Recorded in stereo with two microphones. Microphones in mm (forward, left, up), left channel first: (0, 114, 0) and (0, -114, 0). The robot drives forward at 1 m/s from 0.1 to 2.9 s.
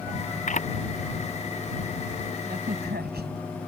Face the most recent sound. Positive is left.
turn(degrees=-50)  # may be behind; listen again after turning